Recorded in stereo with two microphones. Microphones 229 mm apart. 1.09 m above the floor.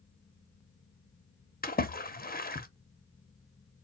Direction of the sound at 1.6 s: 40° left (ahead or behind).